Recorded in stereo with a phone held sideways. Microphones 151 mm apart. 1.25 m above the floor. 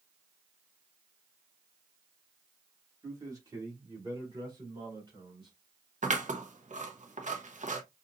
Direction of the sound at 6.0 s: 55° right (ahead or behind).